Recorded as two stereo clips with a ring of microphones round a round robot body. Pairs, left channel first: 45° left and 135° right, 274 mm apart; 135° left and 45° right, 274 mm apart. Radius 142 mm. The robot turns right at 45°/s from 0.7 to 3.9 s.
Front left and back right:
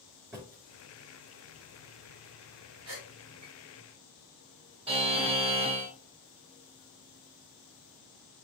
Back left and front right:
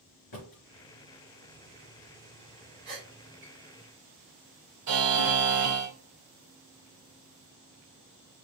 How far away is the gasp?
About 3.5 m.